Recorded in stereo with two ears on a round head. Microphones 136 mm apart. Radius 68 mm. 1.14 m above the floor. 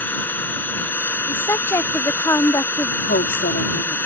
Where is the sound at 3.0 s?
80° left.